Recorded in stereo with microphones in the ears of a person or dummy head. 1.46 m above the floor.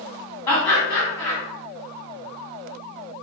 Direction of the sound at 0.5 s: 25° left (ahead or behind).